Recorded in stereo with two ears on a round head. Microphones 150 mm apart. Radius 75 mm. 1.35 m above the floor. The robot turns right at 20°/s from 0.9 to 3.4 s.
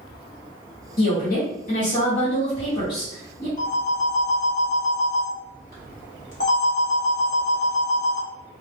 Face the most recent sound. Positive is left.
turn(degrees=50)  # may be behind; listen again after turning